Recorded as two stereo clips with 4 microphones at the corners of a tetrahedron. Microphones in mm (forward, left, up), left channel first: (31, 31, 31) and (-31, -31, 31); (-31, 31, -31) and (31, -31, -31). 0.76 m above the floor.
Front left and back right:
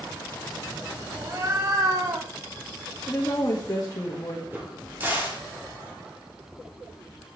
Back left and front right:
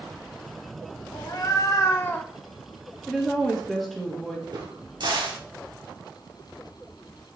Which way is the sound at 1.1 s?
170° left.